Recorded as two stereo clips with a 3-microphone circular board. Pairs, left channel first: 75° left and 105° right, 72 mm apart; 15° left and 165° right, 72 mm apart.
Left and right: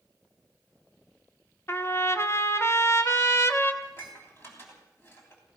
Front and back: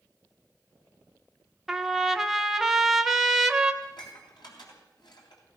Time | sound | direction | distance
1.7 | a trumpet | 110° left | 1.0 m
3.8 | dishes clattering | 15° left | 3.5 m